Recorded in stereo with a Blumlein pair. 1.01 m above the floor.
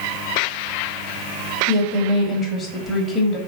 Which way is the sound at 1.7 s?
20° left.